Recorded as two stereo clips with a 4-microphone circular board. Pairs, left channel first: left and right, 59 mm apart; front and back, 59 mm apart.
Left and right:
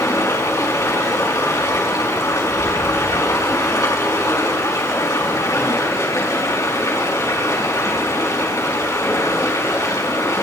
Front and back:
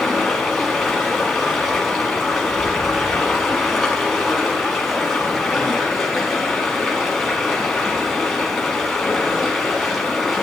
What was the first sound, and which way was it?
Running water, 90° left.